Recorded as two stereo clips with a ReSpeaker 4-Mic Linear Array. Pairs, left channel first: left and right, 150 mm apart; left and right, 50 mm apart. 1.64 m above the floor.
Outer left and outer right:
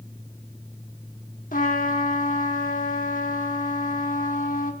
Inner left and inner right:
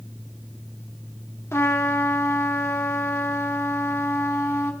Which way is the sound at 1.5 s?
65° left (ahead or behind).